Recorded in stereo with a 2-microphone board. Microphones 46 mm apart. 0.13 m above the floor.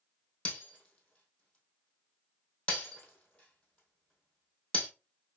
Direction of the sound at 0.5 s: 25° left (ahead or behind).